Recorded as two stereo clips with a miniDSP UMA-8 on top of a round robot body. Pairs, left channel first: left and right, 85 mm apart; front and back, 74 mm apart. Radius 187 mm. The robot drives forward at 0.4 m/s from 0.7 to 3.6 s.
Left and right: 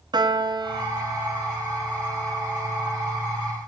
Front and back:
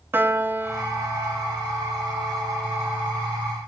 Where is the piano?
120° right, 0.7 m; by 3.1 s 160° right, 1.4 m.